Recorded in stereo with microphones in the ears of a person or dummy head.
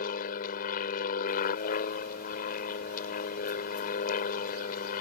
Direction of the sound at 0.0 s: 45° left (ahead or behind).